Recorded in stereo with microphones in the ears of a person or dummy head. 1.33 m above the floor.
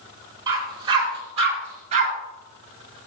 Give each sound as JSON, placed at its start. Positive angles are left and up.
{"t": 0.5, "sound": "a dog barking", "side_deg": -20, "distance_m": 3.5}